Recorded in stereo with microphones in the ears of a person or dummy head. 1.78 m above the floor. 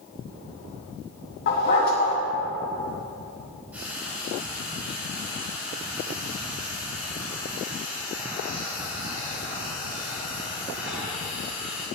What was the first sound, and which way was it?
A dog barking, 50° left (ahead or behind).